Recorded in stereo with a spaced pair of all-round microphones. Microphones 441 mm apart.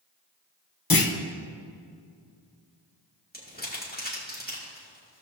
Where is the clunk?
50° left (ahead or behind), 0.8 m.